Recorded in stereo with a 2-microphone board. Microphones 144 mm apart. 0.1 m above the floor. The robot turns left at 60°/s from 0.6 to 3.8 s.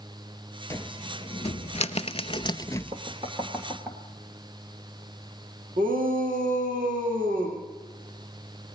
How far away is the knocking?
About 2 m.